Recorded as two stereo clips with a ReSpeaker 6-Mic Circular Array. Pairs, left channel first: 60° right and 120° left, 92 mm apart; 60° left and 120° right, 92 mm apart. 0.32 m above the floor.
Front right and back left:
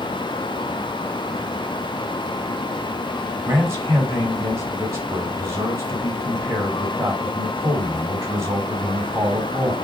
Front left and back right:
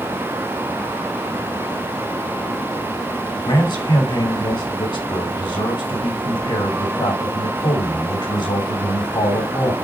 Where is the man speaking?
65° left, 2.5 m.